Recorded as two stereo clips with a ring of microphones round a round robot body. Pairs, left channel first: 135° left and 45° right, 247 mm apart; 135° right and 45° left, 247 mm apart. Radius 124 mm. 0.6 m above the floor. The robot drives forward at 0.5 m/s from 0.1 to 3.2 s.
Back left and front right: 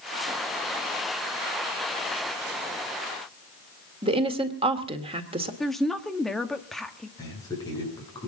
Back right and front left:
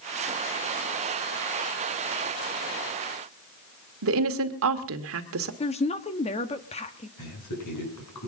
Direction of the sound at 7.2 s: 150° right.